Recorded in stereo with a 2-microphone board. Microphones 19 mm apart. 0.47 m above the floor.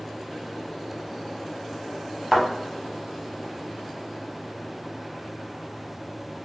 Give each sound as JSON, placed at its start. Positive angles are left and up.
{"t": 2.3, "sound": "a thud", "side_deg": -20, "distance_m": 1.5}